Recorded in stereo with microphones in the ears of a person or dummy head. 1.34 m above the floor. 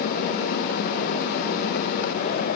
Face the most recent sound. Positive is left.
No sound to turn to.